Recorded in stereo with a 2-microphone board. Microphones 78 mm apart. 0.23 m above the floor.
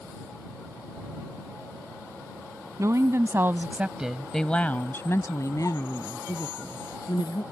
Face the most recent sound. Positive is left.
turn(degrees=60)  # may be behind; listen again after turning